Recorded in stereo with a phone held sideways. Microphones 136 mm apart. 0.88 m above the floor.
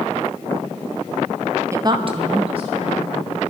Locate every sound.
1.7 s a woman speaking: 20° right (ahead or behind), 0.9 m; by 3.3 s 40° right (ahead or behind), 2.5 m